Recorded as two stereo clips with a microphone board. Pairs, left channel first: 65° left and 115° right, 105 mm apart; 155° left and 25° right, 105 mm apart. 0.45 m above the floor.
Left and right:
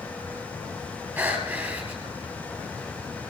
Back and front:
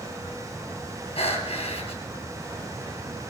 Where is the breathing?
Straight behind, 3 m.